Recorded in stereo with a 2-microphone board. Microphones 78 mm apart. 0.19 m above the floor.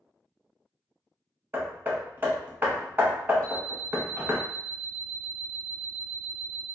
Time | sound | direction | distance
1.5 | hammering | 30° right (ahead or behind) | 0.6 m
3.4 | an alarm clock | 15° left (ahead or behind) | 1.6 m